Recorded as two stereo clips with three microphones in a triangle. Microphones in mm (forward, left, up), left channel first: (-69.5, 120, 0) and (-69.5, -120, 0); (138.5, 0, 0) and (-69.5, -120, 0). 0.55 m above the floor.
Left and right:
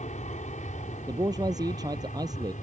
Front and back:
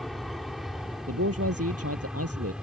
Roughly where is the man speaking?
Behind.